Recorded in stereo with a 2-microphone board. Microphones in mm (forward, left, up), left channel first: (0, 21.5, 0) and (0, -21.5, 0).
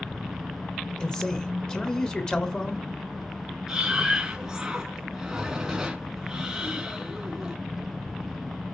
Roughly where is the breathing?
Centre.